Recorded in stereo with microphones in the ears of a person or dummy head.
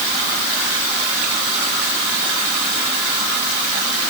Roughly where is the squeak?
I don't hear a squeak.